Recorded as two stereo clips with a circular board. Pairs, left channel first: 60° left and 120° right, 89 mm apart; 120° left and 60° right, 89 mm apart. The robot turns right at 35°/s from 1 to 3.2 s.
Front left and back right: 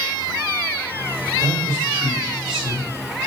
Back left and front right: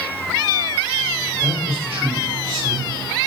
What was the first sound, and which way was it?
A man speaking, 75° right.